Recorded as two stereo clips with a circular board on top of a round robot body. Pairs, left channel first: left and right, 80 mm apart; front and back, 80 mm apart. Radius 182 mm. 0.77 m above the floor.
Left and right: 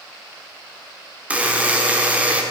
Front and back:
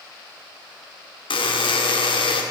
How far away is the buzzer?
About 1.3 m.